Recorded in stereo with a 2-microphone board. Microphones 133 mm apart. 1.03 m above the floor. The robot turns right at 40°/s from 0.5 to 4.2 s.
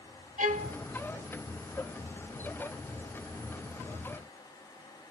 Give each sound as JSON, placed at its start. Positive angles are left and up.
{"t": 0.4, "sound": "a violin", "side_deg": -75, "distance_m": 0.8}